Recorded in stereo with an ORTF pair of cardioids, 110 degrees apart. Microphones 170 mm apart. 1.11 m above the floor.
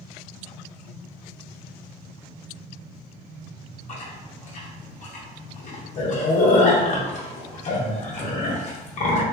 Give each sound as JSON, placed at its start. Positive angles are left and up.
{"t": 3.9, "sound": "chewing", "azimuth_deg": 45, "distance_m": 0.7}